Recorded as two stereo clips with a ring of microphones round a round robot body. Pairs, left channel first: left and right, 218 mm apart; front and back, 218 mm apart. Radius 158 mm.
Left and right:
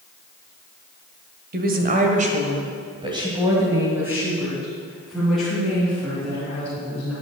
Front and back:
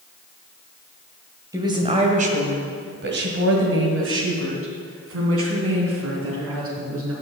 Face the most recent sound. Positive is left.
turn(degrees=175)